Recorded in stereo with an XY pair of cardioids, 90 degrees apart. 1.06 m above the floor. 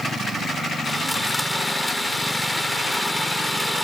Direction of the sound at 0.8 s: 10° left.